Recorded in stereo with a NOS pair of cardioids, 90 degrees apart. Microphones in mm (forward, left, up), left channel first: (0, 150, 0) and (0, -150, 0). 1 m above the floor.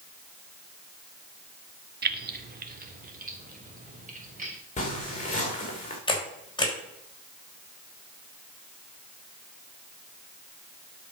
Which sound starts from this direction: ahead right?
Keys jangling, at 2.0 s.